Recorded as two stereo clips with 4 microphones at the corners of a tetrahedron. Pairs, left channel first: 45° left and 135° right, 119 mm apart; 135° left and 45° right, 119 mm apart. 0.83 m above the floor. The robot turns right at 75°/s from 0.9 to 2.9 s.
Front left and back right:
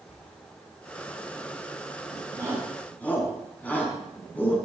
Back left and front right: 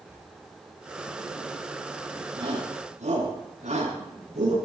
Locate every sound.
0.1 s tearing paper: 30° left, 7.5 m
2.4 s a shout: 75° right, 7.5 m; by 4.6 s 30° right, 7.5 m